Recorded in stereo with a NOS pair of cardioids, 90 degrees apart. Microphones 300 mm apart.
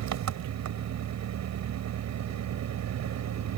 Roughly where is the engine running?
Ahead right.